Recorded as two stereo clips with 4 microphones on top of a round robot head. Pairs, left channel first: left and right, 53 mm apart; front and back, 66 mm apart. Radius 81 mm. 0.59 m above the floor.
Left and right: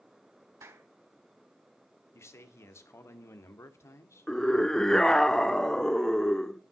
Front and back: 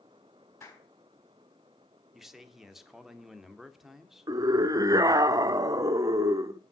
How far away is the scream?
About 1.7 m.